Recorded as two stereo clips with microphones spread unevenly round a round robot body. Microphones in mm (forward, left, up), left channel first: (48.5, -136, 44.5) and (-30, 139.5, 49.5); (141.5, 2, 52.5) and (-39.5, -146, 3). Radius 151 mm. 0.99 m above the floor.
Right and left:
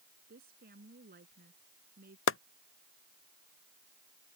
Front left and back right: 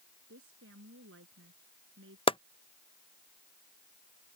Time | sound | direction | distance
0.3 | a woman speaking | 165° left | ?
2.3 | chopping | 35° right | ?